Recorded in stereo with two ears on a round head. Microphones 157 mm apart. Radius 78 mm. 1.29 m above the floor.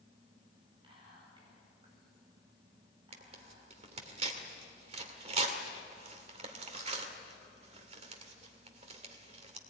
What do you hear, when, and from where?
0.8 s whispering: 30° right (ahead or behind), 8.5 m
3.1 s tearing paper: 40° right (ahead or behind), 2 m